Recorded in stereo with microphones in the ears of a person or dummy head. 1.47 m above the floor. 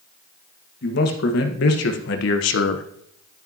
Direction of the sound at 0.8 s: 70° left (ahead or behind).